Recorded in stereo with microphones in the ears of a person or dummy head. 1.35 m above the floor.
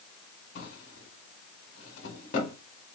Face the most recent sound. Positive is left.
turn(degrees=50)  # may be behind; listen again after turning